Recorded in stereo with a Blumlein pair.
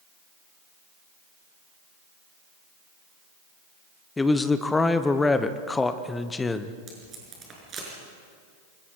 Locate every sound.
4.2 s a man speaking: 10° left, 1.1 m
6.9 s tape being pulled: 25° right, 6 m